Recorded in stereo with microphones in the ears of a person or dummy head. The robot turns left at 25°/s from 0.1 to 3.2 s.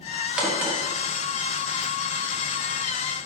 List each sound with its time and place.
0.4 s a crack: 5° right (ahead or behind), 1.5 m; by 0.8 s 15° right (ahead or behind), 1.5 m